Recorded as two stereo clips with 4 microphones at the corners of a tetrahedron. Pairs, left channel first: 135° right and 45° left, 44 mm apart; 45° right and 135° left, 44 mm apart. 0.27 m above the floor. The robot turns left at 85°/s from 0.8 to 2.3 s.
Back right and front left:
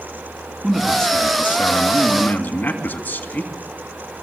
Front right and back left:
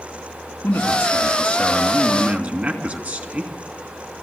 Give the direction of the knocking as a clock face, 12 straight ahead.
No knocking in this recording.